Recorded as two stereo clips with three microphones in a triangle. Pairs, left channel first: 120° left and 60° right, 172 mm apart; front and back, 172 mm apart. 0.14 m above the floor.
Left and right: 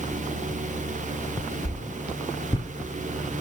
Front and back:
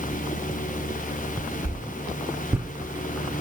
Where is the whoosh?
115° left, 1.2 m.